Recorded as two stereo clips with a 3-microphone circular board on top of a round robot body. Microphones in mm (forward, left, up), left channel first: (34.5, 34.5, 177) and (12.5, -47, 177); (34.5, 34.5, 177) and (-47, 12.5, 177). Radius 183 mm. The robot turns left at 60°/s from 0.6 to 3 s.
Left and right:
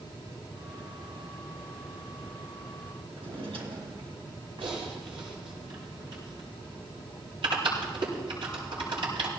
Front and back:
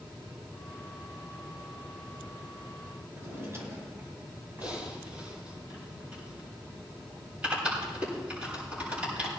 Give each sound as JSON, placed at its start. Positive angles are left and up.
{"t": 3.1, "sound": "a drawer", "azimuth_deg": -105, "distance_m": 2.5}
{"t": 4.6, "sound": "typing on a keyboard", "azimuth_deg": -90, "distance_m": 7.5}